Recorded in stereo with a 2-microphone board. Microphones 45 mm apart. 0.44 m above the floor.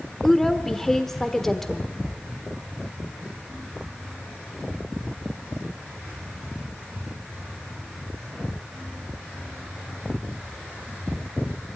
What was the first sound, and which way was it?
A woman speaking, 10° left (ahead or behind).